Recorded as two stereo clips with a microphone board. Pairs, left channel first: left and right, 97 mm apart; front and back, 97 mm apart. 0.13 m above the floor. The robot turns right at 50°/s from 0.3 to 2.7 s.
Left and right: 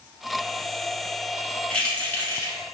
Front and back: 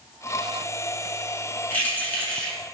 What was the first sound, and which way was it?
Keys jangling, 30° left.